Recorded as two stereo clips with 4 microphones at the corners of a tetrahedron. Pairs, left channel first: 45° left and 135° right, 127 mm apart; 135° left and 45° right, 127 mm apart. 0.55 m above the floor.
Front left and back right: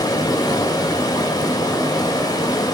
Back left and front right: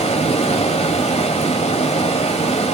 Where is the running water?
105° left, 1.5 m.